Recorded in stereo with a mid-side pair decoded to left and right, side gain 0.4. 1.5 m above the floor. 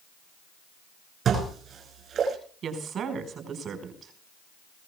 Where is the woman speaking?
65° right, 5 m.